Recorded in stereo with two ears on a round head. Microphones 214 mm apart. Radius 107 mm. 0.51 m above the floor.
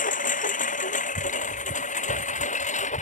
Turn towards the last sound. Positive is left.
turn(degrees=30)  # may be behind; listen again after turning